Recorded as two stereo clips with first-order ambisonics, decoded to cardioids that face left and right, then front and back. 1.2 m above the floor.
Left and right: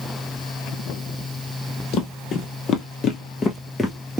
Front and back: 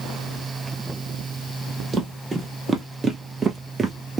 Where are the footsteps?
105° left, 1.8 m; by 4.2 s 175° right, 1.2 m.